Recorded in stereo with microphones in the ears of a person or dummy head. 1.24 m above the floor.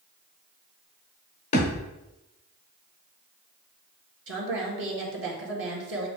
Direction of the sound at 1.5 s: 30° left (ahead or behind).